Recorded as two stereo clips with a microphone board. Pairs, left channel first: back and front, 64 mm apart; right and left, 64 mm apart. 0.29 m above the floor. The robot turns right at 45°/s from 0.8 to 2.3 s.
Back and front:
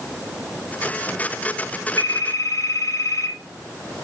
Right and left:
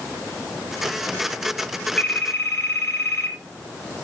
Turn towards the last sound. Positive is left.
turn(degrees=-145)